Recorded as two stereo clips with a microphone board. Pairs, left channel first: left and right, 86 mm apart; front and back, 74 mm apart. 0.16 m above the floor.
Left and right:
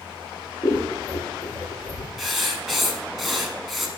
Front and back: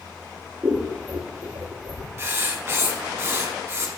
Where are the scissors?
135° left, 1.5 m.